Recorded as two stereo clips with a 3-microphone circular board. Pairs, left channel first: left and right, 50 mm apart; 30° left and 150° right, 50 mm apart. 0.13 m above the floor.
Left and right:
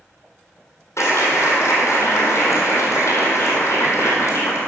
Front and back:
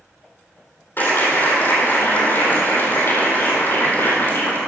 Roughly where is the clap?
Left.